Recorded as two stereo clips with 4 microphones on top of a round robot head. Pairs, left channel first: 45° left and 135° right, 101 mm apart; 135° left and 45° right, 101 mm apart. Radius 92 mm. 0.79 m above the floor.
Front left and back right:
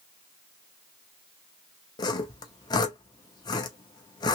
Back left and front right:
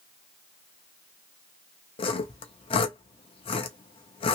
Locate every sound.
2.0 s sawing: 95° left, 0.6 m